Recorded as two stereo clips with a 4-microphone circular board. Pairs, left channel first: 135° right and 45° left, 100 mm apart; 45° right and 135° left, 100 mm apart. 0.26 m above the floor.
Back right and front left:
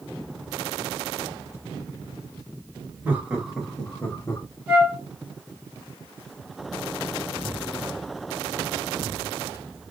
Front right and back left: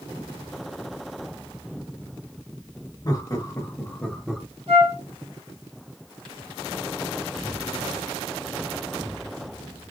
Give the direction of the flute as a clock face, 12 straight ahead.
8 o'clock.